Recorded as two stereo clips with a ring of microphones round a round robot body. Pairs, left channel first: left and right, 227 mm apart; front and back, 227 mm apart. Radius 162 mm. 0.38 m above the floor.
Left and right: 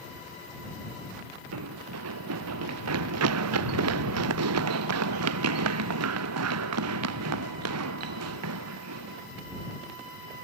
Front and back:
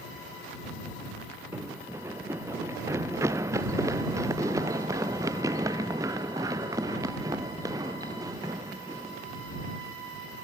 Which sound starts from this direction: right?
Running footsteps, at 1.5 s.